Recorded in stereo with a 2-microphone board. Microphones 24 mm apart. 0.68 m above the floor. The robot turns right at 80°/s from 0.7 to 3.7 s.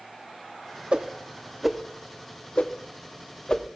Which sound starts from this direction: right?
A whoosh, at 0.9 s.